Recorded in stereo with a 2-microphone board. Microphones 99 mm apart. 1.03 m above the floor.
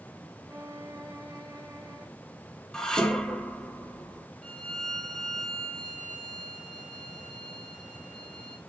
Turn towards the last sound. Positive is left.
turn(degrees=10)  # may be behind; listen again after turning